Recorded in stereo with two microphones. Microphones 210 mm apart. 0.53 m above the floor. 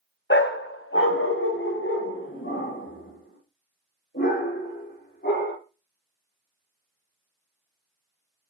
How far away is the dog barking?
About 1.1 m.